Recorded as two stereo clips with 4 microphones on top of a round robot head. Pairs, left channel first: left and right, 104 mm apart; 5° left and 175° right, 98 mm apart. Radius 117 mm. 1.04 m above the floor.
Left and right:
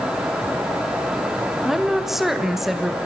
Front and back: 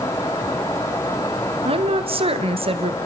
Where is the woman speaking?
175° right, 1.7 m.